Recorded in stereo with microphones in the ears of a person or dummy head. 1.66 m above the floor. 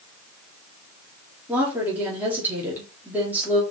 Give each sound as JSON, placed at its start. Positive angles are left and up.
{"t": 1.5, "sound": "a woman speaking", "side_deg": -10, "distance_m": 3.5}